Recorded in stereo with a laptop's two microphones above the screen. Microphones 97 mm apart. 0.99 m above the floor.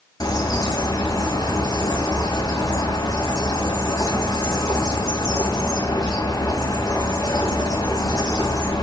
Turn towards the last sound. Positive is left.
turn(degrees=40)  # may be behind; listen again after turning